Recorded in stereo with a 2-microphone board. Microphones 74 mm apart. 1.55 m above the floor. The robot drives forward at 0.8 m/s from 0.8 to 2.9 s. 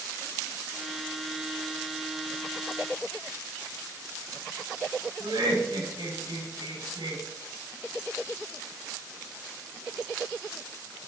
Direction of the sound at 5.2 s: 85° right.